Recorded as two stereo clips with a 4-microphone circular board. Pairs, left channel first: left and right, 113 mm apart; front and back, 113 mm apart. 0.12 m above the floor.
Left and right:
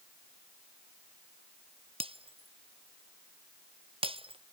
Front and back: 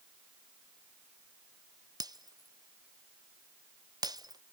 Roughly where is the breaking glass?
Behind right.